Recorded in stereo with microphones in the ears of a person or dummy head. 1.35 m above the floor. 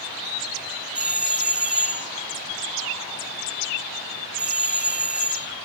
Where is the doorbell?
10° right (ahead or behind), 0.7 m.